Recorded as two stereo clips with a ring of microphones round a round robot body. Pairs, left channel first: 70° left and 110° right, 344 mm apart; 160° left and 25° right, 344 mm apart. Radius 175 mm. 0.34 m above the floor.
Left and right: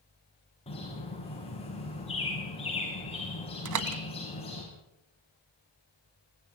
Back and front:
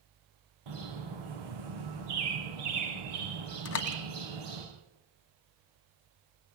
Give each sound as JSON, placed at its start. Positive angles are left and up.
{"t": 0.7, "sound": "a bird", "azimuth_deg": -5, "distance_m": 8.0}
{"t": 3.6, "sound": "a door slam", "azimuth_deg": -150, "distance_m": 1.7}